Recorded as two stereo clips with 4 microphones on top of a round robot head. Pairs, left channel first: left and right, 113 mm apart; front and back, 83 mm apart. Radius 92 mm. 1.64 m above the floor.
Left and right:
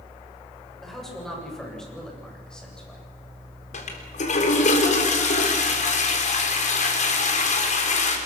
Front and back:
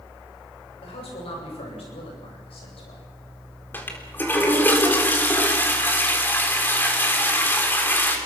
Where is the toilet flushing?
70° left, 4 m.